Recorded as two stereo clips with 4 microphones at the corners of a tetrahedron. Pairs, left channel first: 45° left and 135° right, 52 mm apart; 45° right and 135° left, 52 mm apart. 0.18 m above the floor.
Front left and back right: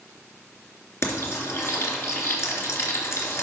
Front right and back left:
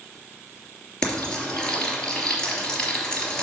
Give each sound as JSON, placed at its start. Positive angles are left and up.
{"t": 1.0, "sound": "frying", "azimuth_deg": 25, "distance_m": 3.0}